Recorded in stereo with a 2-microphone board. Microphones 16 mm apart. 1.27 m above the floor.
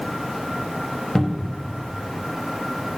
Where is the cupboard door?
35° left (ahead or behind), 0.9 m.